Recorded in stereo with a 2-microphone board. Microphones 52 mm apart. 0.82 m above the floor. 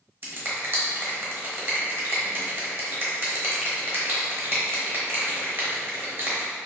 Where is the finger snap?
40° right (ahead or behind), 0.9 m.